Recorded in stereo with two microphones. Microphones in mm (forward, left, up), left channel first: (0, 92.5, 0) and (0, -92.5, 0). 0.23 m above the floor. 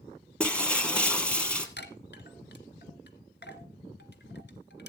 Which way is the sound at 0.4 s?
5° left (ahead or behind).